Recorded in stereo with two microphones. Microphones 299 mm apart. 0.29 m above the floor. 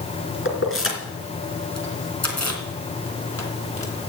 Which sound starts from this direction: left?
Keys jangling, at 0.5 s.